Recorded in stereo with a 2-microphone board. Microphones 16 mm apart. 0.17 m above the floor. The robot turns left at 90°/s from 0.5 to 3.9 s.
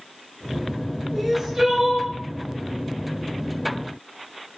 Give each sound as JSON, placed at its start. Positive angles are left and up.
{"t": 1.1, "sound": "crying", "azimuth_deg": 15, "distance_m": 1.4}